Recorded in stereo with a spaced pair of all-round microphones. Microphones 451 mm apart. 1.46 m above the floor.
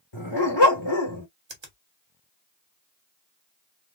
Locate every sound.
0.1 s a dog barking: 65° left (ahead or behind), 2 m
1.5 s a finger snap: 75° right (ahead or behind), 1.3 m